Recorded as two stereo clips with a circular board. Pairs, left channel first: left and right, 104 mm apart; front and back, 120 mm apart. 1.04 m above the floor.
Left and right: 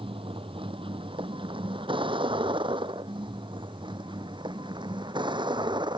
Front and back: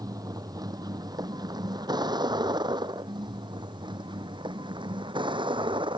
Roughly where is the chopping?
I don't hear chopping.